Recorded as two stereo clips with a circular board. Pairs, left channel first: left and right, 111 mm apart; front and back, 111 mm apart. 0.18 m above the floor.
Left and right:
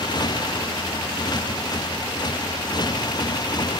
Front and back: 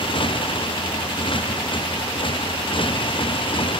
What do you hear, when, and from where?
0.0 s a motorcycle: 40° left